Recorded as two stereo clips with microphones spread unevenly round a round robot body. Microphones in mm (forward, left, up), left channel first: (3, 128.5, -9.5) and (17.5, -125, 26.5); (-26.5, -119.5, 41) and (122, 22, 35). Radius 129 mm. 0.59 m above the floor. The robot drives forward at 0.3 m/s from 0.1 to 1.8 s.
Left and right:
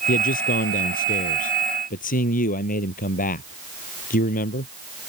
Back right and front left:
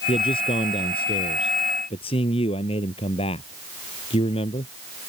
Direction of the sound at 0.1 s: 155° left.